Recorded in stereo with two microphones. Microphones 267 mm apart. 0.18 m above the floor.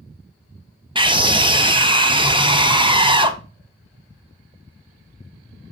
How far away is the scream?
About 1.3 m.